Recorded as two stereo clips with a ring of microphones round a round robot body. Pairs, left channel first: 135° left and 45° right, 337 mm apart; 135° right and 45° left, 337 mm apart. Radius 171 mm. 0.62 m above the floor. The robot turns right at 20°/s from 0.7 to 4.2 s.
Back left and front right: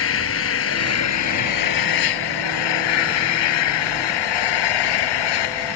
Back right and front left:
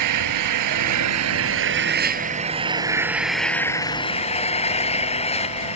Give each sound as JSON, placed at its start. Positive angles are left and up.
{"t": 0.0, "sound": "an engine running", "azimuth_deg": 80}